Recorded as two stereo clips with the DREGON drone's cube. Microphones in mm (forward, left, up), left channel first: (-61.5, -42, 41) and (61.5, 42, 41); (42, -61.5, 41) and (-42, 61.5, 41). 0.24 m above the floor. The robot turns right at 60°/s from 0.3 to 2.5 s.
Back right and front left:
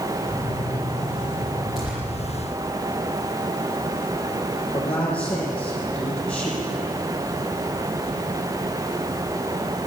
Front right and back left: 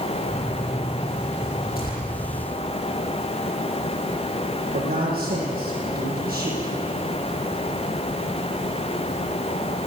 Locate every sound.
1.8 s tearing paper: 55° right, 10 m; by 2.0 s 40° right, 10 m
4.7 s a man speaking: 135° left, 9 m